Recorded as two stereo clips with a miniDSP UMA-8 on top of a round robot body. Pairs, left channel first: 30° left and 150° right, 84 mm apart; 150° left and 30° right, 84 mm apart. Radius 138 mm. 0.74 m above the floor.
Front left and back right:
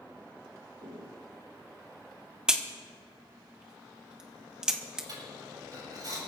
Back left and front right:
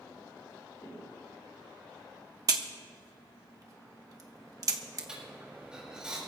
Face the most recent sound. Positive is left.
turn(degrees=-110)